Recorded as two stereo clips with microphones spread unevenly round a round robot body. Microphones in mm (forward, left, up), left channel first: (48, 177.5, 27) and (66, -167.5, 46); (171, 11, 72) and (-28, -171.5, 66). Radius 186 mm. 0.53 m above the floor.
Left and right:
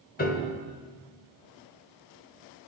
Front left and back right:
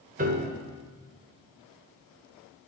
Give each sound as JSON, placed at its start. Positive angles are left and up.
{"t": 0.2, "sound": "a piano", "azimuth_deg": 160, "distance_m": 1.1}